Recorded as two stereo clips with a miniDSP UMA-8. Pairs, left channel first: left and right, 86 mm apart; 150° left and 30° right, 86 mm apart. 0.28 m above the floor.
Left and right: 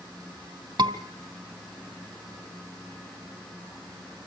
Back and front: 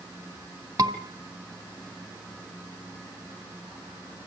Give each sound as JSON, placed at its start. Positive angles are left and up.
{"t": 0.8, "sound": "a scream", "azimuth_deg": -65, "distance_m": 2.5}